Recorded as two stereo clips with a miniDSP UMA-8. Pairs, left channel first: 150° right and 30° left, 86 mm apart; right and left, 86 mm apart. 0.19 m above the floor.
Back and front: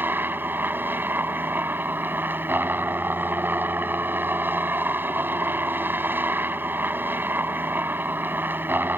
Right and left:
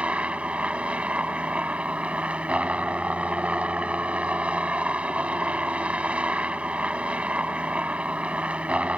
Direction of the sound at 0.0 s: 40° left.